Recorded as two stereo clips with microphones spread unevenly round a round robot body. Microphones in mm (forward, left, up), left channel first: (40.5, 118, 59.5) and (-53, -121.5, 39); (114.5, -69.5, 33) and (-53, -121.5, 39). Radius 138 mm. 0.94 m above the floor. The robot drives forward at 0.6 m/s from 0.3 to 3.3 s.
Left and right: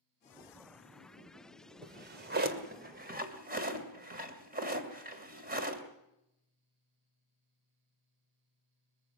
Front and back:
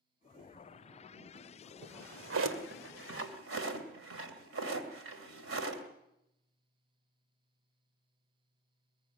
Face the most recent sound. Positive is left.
turn(degrees=-170)